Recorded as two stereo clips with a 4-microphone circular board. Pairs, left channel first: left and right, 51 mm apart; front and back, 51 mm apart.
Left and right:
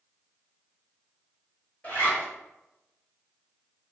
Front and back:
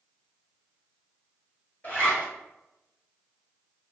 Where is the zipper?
35° left, 1.7 m.